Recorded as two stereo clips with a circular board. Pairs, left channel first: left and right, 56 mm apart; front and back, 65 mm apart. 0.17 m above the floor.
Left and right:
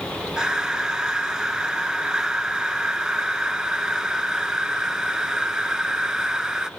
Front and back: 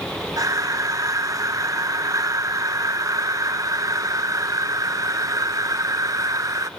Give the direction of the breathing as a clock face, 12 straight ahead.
6 o'clock.